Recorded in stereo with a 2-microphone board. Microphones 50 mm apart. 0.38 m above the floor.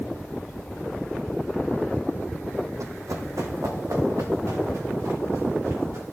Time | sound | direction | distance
2.8 | running footsteps | 70° right (ahead or behind) | 1.1 m